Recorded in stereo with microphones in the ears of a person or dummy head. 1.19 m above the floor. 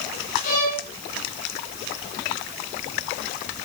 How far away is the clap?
I don't hear a clap.